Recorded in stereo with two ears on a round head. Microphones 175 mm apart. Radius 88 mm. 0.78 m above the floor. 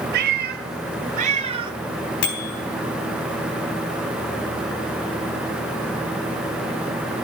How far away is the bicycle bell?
About 4 m.